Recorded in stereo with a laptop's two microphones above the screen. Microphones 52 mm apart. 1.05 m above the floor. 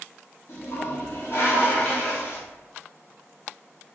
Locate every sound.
0.5 s a toilet flushing: 55° left (ahead or behind), 1.7 m